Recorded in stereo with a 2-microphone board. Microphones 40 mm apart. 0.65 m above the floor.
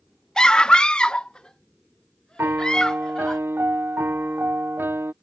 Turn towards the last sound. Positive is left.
turn(degrees=-75)  # may be behind; listen again after turning